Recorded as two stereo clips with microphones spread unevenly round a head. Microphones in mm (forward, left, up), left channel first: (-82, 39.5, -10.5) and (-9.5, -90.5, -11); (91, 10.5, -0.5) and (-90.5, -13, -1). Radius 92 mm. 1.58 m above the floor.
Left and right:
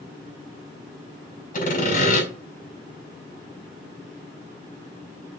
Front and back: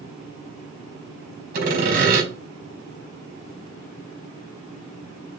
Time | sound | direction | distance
1.5 | sawing | 150° left | 4.5 m